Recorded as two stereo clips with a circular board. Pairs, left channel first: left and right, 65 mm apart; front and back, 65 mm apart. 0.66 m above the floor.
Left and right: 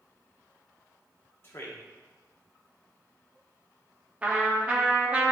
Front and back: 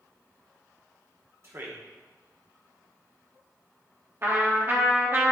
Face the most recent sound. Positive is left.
turn(degrees=-150)